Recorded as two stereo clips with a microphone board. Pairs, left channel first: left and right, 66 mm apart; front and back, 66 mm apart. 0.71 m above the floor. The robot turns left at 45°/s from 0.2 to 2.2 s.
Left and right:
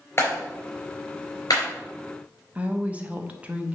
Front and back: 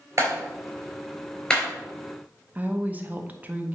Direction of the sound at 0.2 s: 135° left.